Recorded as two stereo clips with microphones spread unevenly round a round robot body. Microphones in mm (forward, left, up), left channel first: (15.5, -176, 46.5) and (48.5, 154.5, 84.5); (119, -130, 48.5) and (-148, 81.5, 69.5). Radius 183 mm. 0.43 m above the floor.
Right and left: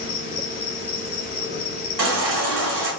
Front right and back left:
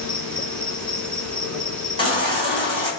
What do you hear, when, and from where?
0.0 s an insect: 120° right, 2.5 m
2.0 s a baby crying: 35° left, 3.5 m